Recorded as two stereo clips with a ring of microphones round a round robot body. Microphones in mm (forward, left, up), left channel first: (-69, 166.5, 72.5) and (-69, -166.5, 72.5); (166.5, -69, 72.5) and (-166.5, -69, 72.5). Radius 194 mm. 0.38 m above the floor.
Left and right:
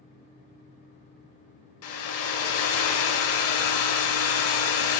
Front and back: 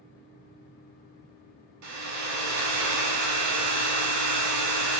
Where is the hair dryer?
140° left, 0.6 m.